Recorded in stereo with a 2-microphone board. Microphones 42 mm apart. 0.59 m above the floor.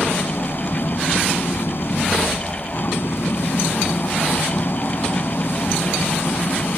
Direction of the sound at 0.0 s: 65° left (ahead or behind).